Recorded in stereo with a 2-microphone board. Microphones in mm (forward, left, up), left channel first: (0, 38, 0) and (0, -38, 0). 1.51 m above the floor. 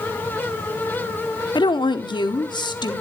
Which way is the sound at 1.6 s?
80° left.